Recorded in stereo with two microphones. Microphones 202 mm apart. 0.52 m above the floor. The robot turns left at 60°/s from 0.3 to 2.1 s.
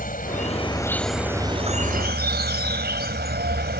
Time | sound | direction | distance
0.0 | an insect | 50° left | ?